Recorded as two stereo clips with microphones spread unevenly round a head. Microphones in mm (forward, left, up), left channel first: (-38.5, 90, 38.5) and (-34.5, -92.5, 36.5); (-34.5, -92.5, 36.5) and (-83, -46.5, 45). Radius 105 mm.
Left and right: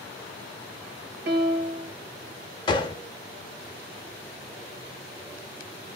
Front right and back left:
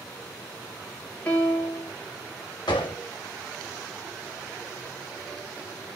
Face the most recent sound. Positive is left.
turn(degrees=20)